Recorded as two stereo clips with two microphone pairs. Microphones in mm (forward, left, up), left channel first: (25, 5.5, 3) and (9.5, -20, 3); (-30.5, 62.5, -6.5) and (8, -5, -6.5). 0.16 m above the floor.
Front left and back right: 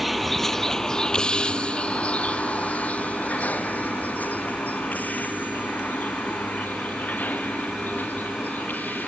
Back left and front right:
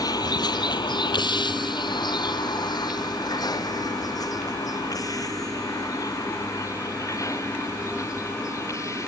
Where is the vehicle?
150° left; by 9.1 s 70° left.